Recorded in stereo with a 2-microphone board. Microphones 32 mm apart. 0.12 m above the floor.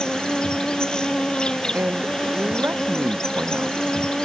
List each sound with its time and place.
0.0 s an insect: 25° left (ahead or behind)
1.7 s a man speaking: 80° right